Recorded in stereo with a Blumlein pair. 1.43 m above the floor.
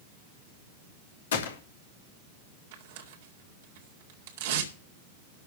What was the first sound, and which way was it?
A gunshot, 60° left.